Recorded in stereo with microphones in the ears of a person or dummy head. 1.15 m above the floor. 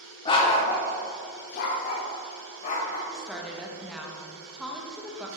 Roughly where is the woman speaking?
Centre.